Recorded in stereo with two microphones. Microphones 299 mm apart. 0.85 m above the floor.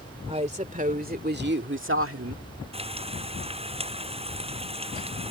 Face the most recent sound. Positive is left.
turn(degrees=-20)  # may be behind; listen again after turning